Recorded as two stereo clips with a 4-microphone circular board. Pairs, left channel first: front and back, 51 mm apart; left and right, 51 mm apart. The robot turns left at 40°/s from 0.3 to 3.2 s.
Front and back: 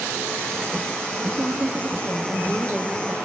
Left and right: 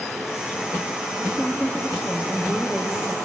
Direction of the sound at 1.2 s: 165° right.